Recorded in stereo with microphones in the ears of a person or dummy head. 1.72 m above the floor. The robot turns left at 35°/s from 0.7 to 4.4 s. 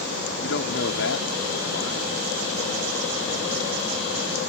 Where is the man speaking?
115° left; by 2.1 s 65° left.